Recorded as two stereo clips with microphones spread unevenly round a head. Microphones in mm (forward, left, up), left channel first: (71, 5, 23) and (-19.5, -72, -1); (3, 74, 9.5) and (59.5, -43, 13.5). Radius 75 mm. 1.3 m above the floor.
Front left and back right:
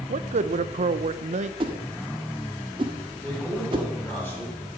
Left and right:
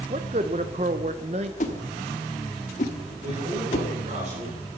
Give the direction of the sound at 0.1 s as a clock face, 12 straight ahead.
4 o'clock.